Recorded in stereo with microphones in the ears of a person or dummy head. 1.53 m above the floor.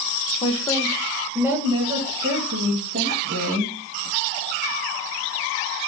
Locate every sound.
0.4 s a woman speaking: 30° left (ahead or behind), 1.0 m; by 3.7 s 50° right (ahead or behind), 2 m